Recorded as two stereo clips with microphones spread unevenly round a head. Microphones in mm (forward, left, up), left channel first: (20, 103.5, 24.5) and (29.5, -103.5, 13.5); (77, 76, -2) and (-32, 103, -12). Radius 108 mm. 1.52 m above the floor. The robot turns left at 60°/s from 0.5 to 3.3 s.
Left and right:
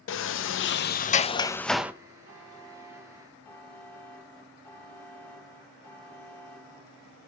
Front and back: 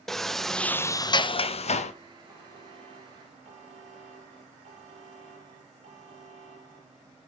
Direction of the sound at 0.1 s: 75° left.